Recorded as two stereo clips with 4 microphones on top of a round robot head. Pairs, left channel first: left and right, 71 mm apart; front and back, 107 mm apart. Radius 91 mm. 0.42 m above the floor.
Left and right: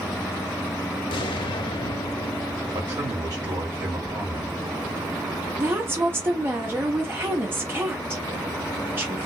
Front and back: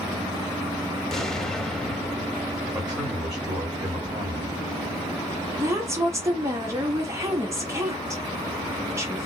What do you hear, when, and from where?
1.1 s an explosion: 85° left, 0.5 m
2.7 s a man speaking: 100° right, 2 m
5.6 s a woman speaking: 130° right, 1.0 m